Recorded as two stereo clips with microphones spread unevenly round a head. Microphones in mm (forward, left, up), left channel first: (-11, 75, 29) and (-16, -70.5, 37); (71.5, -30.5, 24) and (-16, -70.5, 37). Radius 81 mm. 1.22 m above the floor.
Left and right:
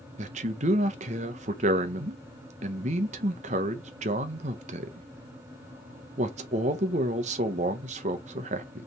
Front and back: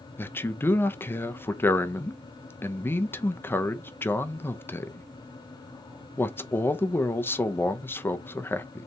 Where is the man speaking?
45° right, 0.8 m.